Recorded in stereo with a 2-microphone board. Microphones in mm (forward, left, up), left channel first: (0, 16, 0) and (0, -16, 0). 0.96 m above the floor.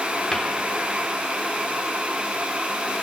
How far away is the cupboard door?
About 3 m.